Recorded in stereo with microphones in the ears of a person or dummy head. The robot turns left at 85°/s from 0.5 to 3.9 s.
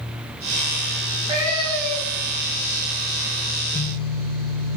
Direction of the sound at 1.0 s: 135° right.